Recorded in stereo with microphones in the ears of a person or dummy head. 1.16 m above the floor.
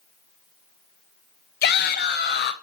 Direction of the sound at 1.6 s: 45° left (ahead or behind).